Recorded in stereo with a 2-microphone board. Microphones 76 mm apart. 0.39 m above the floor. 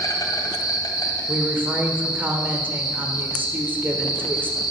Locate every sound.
0.0 s an insect: 55° left (ahead or behind), 2 m
1.3 s a woman speaking: 25° right (ahead or behind), 1.3 m